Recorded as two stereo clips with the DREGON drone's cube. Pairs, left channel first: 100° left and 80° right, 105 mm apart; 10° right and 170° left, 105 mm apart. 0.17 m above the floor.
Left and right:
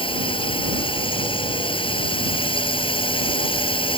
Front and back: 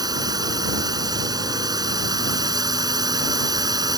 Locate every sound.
0.0 s a drone: 125° left